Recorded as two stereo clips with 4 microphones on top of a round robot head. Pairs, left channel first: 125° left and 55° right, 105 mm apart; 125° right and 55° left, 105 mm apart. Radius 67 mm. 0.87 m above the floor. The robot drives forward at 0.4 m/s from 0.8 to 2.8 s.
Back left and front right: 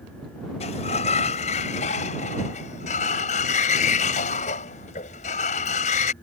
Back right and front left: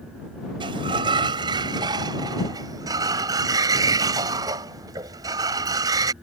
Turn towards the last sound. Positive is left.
turn(degrees=115)